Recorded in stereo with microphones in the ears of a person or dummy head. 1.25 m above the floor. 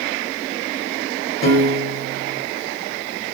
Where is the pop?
I don't hear a pop.